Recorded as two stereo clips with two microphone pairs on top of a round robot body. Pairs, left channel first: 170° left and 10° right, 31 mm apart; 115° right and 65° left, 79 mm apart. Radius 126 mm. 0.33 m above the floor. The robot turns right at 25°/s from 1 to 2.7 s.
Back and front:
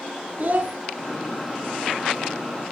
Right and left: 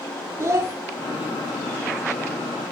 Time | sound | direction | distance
0.4 | a child speaking | 10° left | 0.8 m